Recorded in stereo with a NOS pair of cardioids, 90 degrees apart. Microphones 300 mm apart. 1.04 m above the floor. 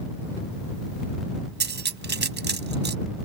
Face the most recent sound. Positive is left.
turn(degrees=-35)